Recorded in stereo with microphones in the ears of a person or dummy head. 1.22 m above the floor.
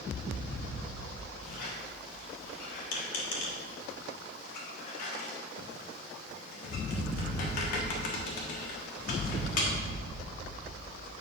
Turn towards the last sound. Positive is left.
turn(degrees=55)  # may be behind; listen again after turning